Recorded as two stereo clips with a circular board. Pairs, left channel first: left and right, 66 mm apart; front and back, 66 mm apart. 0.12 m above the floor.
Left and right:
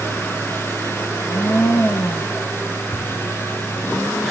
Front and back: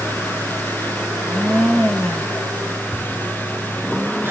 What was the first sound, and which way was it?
A blender, 85° left.